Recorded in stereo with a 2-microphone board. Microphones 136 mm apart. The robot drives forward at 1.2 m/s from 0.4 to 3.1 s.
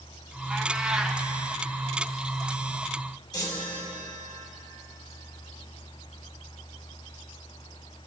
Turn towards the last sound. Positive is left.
turn(degrees=30)  # may be behind; listen again after turning